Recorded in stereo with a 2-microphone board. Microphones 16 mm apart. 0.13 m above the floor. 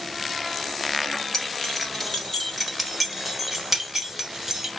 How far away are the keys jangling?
About 1.8 m.